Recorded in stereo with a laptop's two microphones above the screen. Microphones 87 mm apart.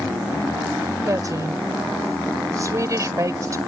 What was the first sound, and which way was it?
A woman speaking, 40° right (ahead or behind).